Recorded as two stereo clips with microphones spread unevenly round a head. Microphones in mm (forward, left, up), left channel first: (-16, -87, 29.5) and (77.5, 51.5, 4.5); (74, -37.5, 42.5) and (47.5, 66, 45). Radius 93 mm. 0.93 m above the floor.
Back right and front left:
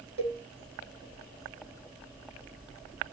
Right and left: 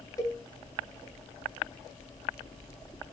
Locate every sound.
0.2 s a cowbell: 15° right, 1.8 m